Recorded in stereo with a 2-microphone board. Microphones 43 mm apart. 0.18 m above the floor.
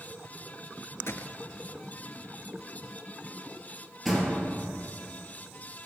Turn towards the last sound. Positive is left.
turn(degrees=5)  # may be behind; listen again after turning